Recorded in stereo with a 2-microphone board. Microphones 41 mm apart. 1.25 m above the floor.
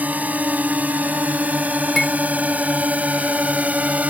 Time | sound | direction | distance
0.0 | a drone | 45° right (ahead or behind) | ?
2.0 | cutlery clinking | 10° left (ahead or behind) | ?